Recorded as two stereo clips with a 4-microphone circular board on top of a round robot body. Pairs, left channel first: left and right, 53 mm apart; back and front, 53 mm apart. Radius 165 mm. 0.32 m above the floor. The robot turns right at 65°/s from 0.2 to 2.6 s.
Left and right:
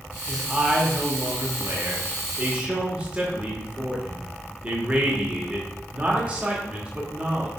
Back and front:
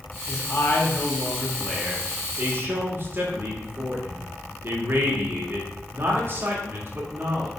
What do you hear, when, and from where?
0.3 s a man speaking: straight behind, 2.0 m; by 7.5 s 25° right, 2.0 m